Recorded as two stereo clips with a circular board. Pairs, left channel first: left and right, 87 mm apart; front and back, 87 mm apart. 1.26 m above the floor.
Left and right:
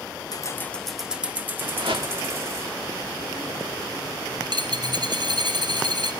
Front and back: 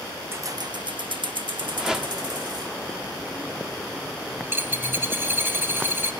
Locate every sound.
0.3 s keys jangling: 125° left, 0.7 m; by 2.8 s 145° right, 2.5 m
1.8 s a whoosh: 95° right, 1.7 m
4.4 s a dropped coin: 115° right, 2.5 m